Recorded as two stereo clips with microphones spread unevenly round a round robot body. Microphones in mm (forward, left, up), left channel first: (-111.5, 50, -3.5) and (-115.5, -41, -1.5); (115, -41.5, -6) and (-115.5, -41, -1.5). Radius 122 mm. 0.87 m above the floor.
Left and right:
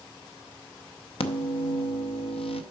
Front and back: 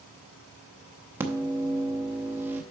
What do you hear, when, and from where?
1.2 s a microwave: 100° left, 0.6 m